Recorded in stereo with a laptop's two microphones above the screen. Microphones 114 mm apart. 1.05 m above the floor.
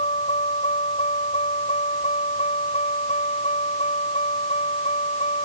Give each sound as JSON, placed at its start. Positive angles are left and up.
{"t": 0.0, "sound": "a vehicle", "side_deg": 75}